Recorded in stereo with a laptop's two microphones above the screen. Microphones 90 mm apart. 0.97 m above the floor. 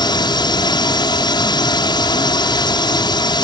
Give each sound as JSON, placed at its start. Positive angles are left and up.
{"t": 0.0, "sound": "a drone", "side_deg": 55}